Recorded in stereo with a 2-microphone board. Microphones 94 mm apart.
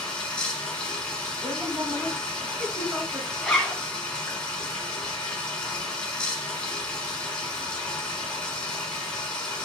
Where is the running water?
10° left (ahead or behind), 1.4 m.